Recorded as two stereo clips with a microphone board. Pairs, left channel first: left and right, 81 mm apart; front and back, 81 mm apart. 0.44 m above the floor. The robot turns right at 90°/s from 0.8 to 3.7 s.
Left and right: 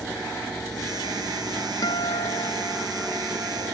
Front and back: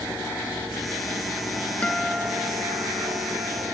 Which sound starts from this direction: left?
A guitar, at 1.8 s.